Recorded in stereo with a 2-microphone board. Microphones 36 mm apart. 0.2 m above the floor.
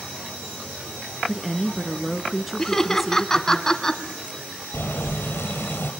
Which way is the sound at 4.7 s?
80° left.